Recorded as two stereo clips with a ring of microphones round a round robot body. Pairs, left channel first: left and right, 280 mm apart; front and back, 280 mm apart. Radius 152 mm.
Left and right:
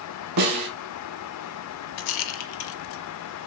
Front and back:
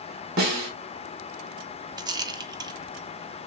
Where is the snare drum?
120° right, 1.6 m.